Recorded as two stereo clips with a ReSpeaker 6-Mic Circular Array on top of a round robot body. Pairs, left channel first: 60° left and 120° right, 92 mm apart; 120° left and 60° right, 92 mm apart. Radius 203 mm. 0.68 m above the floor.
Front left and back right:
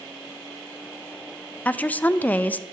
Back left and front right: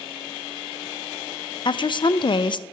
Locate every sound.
1.6 s a woman speaking: 130° left, 0.6 m